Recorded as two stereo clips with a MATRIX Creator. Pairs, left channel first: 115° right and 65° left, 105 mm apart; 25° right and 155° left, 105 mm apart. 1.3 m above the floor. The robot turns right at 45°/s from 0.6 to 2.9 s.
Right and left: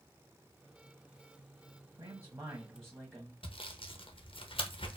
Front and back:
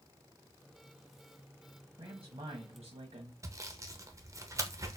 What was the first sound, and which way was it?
A man speaking, 110° left.